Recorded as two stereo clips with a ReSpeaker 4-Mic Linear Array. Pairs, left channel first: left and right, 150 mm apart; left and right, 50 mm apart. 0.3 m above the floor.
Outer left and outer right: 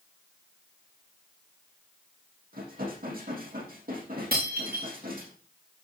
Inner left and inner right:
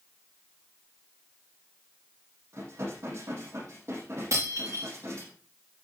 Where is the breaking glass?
85° right, 6 m.